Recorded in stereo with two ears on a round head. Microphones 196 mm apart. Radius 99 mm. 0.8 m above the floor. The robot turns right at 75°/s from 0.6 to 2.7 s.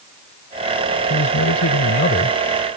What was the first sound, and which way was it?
A man speaking, 50° left.